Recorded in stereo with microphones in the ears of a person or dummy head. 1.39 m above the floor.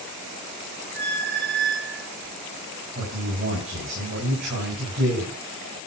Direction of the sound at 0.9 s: 55° right (ahead or behind).